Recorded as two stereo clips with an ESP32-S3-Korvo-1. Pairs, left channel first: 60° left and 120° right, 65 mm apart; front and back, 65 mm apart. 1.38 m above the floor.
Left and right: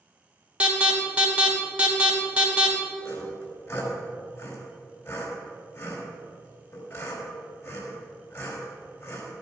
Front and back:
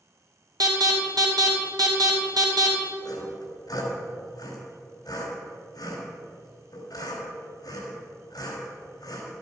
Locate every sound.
0.6 s an alarm: 170° left, 2.5 m
3.0 s sawing: 15° left, 3 m